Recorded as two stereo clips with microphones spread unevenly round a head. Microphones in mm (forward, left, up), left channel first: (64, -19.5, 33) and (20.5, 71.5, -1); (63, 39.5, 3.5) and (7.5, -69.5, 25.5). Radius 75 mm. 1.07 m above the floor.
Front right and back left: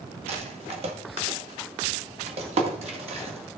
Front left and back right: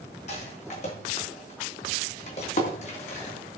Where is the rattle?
105° left, 2 m.